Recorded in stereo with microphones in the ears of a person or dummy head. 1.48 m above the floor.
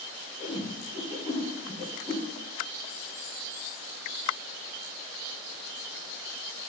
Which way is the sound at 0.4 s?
25° right (ahead or behind).